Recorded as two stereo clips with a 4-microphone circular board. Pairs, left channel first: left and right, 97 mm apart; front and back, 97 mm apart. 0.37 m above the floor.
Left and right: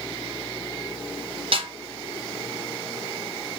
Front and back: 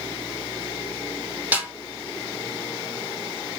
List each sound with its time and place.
1.5 s a snare drum: 105° right, 1.6 m